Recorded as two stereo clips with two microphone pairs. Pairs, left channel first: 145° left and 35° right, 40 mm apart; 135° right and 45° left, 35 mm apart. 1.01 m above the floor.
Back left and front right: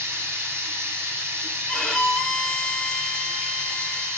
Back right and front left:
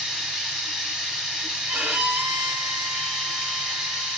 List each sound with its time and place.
0.0 s running water: 35° right, 2 m
1.7 s a violin: 65° left, 1.4 m